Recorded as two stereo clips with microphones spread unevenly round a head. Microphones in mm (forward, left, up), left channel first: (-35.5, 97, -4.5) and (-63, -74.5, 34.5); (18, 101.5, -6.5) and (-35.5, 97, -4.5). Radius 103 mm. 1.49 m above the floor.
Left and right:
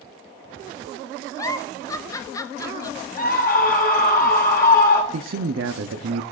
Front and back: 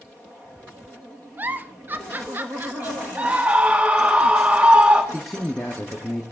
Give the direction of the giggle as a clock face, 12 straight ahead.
7 o'clock.